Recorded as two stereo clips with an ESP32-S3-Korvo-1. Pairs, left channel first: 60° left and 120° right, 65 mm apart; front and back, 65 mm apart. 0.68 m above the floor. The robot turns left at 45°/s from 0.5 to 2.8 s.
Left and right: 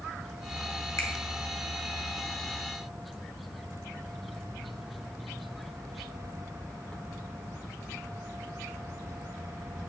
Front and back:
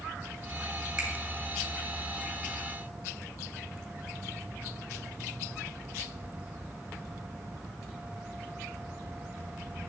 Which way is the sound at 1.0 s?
105° left.